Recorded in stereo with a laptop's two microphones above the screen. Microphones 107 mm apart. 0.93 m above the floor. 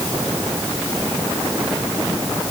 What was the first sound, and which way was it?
Only background noise.